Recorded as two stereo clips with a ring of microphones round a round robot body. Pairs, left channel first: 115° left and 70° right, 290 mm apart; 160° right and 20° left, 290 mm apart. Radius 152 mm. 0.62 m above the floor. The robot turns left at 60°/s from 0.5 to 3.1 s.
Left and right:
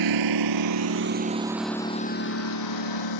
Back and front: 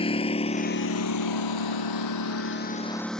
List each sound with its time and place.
0.0 s a lawn mower: 85° right; by 3.2 s 115° left